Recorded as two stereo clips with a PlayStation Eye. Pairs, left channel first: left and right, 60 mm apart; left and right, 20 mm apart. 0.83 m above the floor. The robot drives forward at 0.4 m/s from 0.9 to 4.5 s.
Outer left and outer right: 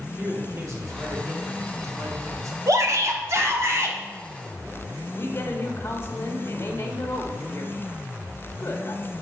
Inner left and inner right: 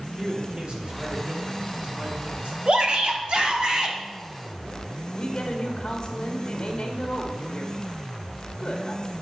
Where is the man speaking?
55° right (ahead or behind), 2.5 m; by 2.6 s 65° right (ahead or behind), 2 m.